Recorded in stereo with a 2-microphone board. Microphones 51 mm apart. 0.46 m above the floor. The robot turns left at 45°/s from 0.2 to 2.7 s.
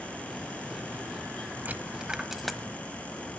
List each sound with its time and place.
1.6 s a dropped coin: 35° right (ahead or behind), 1.0 m; by 2.6 s 10° left (ahead or behind), 1.0 m